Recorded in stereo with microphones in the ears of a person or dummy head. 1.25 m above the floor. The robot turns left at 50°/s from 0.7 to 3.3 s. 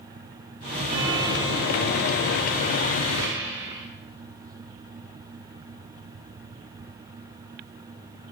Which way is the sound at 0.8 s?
40° right.